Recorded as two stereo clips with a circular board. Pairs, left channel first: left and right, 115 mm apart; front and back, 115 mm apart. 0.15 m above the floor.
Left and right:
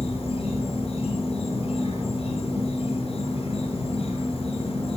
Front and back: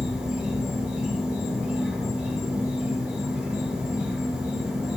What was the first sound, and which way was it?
An insect, 105° left.